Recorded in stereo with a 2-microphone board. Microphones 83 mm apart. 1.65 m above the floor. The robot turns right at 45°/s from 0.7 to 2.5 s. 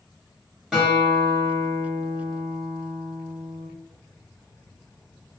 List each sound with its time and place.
0.7 s a guitar: 170° right, 1.0 m; by 3.7 s 90° right, 1.0 m